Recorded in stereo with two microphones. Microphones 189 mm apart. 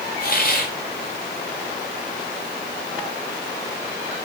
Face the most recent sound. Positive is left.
turn(degrees=55)  # may be behind; listen again after turning